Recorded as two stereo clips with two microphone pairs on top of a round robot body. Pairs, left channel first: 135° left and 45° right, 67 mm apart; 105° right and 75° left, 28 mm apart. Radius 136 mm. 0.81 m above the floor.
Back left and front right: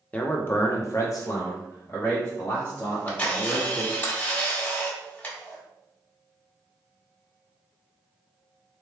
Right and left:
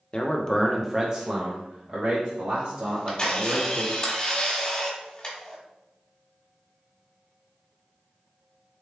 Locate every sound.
0.1 s a man speaking: 160° right, 0.7 m; by 3.9 s 80° left, 2.0 m
2.9 s a camera shutter: 165° right, 1.6 m